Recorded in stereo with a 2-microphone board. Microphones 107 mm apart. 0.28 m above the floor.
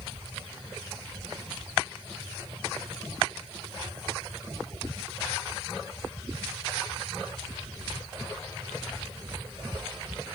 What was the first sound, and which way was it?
Only background noise.